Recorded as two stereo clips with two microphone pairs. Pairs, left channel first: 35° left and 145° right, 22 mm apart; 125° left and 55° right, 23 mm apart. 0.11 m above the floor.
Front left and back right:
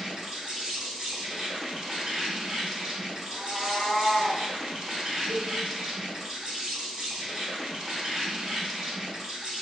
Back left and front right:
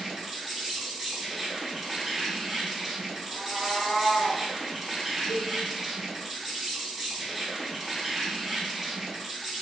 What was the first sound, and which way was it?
An insect, 150° right.